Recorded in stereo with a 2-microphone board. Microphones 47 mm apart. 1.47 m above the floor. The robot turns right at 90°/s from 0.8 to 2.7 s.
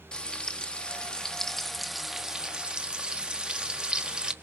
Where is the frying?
20° left (ahead or behind), 0.9 m; by 4.3 s 20° right (ahead or behind), 0.9 m.